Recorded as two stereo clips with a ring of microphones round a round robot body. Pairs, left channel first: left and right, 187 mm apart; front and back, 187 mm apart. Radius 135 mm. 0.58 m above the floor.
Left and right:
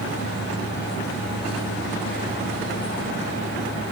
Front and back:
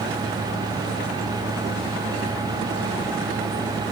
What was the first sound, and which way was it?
Only background noise.